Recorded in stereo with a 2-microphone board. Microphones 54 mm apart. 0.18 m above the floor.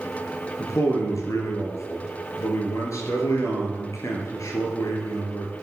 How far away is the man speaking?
About 3 m.